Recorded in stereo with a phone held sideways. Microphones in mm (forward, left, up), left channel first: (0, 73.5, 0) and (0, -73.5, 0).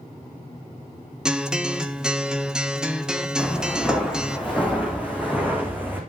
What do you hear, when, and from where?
1.2 s a guitar: 5° right (ahead or behind), 1.5 m
3.4 s footsteps: 5° right (ahead or behind), 6.5 m; by 6.0 s 15° right (ahead or behind), 5.5 m